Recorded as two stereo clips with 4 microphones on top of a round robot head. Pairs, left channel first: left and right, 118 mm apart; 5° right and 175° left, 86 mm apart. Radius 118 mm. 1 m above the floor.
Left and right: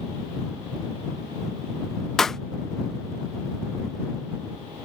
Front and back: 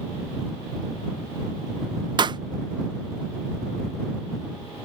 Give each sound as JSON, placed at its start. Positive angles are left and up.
{"t": 2.2, "sound": "a pop", "azimuth_deg": 175}